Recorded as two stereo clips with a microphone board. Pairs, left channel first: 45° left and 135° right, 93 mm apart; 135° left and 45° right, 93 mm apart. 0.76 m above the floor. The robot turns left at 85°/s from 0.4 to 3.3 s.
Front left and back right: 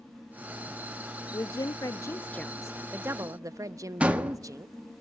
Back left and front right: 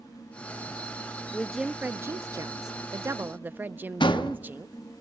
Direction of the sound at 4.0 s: 150° left.